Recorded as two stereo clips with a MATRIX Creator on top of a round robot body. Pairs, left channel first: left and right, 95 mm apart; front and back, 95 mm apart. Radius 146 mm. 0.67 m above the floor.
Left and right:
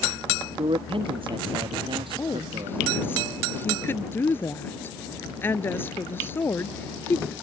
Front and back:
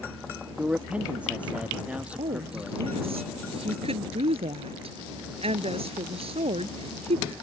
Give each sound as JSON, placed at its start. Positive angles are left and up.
{"t": 0.6, "sound": "a man speaking", "azimuth_deg": -105}
{"t": 2.2, "sound": "a woman speaking", "azimuth_deg": 160}